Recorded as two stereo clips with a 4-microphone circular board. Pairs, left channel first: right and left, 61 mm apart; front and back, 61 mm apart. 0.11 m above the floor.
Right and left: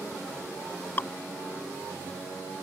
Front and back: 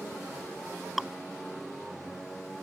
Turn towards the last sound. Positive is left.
turn(degrees=-90)